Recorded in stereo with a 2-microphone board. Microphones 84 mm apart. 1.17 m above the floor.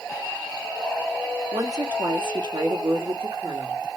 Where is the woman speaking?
50° right (ahead or behind), 2 m; by 3.8 s 75° right (ahead or behind), 1.6 m.